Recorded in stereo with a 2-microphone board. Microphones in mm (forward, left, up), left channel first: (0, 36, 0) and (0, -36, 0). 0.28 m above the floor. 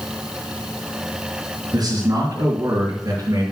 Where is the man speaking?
65° right (ahead or behind), 4 m; by 3.4 s 60° right (ahead or behind), 3.5 m.